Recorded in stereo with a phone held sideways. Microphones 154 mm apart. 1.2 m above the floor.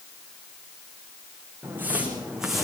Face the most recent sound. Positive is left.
turn(degrees=0)  # may be behind; listen again after turning